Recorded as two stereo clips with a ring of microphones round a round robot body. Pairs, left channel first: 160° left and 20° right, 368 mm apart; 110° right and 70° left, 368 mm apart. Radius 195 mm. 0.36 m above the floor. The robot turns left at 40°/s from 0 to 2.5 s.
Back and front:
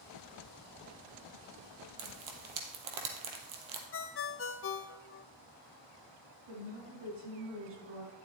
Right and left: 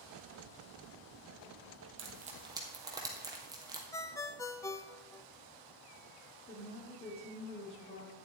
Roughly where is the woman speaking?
Ahead right.